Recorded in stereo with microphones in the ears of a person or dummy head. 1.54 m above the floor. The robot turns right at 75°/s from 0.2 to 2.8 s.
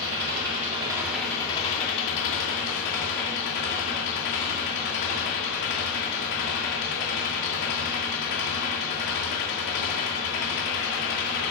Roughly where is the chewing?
I don't hear chewing.